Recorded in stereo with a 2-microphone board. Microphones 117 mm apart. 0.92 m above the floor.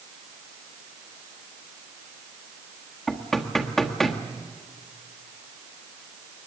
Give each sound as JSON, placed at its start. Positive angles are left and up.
{"t": 3.1, "sound": "knocking", "side_deg": 5, "distance_m": 1.5}